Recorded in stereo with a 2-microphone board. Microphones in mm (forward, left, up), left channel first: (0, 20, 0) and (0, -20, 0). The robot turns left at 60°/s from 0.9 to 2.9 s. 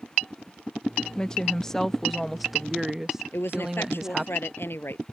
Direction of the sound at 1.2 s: 20° left (ahead or behind).